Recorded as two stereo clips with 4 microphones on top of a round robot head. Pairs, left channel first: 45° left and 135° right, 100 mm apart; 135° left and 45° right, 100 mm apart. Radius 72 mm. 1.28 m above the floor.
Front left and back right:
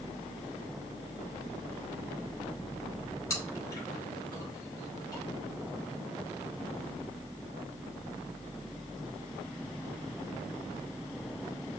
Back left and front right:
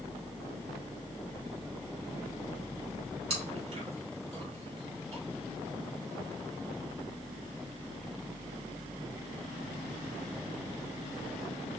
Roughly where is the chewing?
Ahead.